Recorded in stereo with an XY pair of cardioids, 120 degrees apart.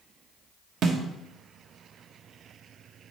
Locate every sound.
0.8 s a snare drum: 55° right, 1.2 m